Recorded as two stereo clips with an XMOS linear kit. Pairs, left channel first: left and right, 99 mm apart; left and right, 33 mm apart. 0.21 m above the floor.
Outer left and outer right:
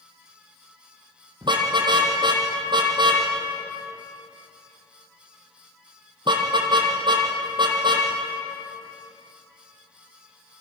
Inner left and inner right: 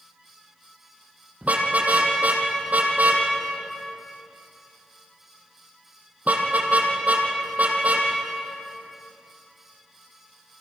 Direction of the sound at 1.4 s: 50° right (ahead or behind).